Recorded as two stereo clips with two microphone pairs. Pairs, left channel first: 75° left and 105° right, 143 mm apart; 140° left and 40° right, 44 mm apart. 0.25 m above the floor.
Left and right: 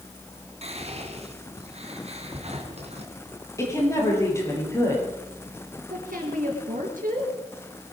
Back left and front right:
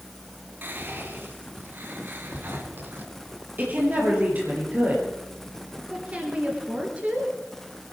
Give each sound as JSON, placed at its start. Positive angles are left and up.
{"t": 0.6, "sound": "whispering", "azimuth_deg": -70, "distance_m": 2.5}
{"t": 3.6, "sound": "a woman speaking", "azimuth_deg": 5, "distance_m": 6.0}
{"t": 5.9, "sound": "a woman speaking", "azimuth_deg": -95, "distance_m": 4.0}